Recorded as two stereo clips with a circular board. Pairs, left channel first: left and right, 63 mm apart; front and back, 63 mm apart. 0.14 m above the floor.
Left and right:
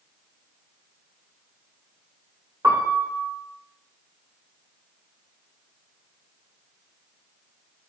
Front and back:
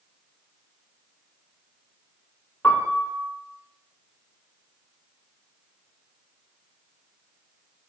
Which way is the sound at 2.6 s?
75° right.